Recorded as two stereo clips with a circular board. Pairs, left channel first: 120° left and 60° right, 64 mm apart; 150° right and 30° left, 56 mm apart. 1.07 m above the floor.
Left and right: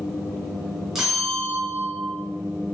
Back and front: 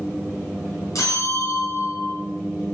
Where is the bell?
145° right, 4.5 m.